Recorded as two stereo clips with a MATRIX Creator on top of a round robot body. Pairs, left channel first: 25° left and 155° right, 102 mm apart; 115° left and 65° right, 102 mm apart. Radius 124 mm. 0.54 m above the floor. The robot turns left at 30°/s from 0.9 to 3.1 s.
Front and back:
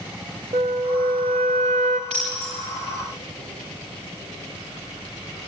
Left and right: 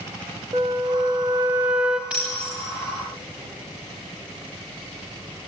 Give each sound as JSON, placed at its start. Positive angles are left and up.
{"t": 0.5, "sound": "a flute", "azimuth_deg": -120, "distance_m": 0.6}
{"t": 2.1, "sound": "breaking glass", "azimuth_deg": -145, "distance_m": 7.0}